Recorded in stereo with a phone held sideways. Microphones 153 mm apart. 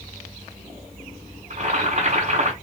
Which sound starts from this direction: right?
Boiling, at 1.5 s.